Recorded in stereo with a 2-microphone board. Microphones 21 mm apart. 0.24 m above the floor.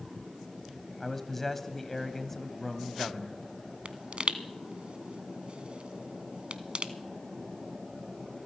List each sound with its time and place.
1.0 s a man speaking: 15° left (ahead or behind), 1.0 m
3.9 s a pop: 60° right (ahead or behind), 0.7 m